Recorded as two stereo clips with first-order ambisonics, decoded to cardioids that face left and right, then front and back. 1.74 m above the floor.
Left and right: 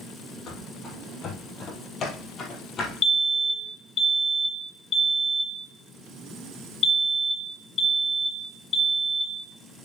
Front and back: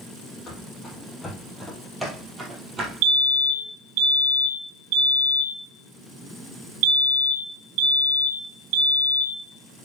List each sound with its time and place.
0.5 s running footsteps: 55° left, 2 m; by 2.9 s 130° left, 2 m
3.0 s a fire alarm: 155° left, 1.7 m